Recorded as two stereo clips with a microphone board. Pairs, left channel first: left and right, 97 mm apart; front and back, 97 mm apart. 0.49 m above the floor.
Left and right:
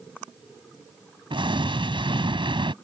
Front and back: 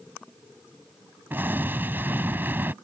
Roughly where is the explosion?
Right.